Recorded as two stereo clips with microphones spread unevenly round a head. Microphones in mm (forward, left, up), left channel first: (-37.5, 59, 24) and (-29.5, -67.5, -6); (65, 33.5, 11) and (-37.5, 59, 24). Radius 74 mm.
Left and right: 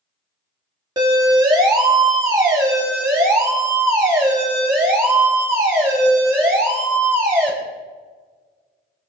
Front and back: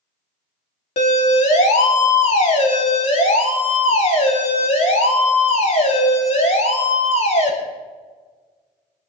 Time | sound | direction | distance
1.0 | a siren | 25° right | 2.5 m